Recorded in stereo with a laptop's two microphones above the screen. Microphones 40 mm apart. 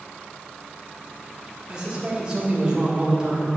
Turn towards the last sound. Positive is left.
turn(degrees=-20)  # may be behind; listen again after turning